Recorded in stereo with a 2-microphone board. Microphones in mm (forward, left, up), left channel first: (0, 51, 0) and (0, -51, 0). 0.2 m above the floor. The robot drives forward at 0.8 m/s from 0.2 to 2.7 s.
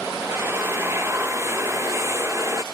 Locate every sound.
0.2 s a drill: 25° right (ahead or behind); by 2.6 s 30° right (ahead or behind)